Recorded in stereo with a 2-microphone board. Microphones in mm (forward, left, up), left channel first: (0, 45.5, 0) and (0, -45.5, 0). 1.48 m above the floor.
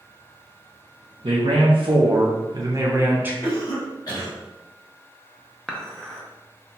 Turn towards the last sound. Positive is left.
turn(degrees=5)  # may be behind; listen again after turning